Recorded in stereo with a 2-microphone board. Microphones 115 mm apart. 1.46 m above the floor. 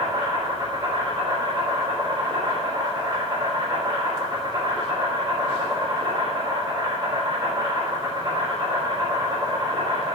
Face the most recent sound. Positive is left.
turn(degrees=-40)  # may be behind; listen again after turning